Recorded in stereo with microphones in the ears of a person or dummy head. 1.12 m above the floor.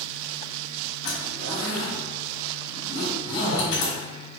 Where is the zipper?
70° left (ahead or behind), 1.8 m.